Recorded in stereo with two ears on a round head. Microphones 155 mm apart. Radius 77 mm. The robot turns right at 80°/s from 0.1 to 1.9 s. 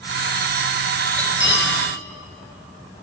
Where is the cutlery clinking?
10° left (ahead or behind), 4 m; by 1.7 s 55° left (ahead or behind), 4 m.